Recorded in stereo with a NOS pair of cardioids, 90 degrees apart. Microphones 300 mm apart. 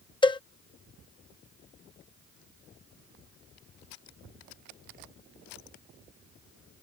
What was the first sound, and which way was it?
A cowbell, 15° left.